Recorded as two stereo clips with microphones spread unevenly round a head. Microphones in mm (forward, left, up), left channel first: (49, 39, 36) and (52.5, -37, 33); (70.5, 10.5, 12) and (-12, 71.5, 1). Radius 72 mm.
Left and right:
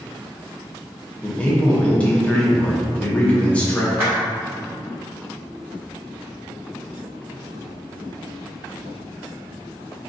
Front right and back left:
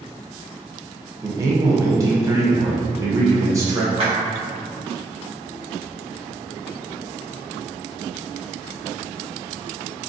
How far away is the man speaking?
About 0.7 m.